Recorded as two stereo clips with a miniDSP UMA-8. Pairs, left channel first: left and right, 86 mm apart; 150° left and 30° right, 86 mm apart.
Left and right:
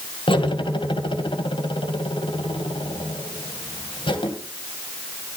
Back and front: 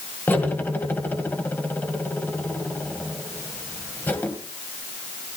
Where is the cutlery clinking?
85° left, 2.5 m.